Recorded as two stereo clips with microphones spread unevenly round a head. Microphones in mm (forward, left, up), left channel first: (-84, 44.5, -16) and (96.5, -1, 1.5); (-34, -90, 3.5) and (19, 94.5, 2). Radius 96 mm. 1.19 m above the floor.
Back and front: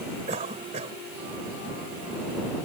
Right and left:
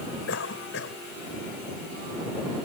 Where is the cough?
75° right.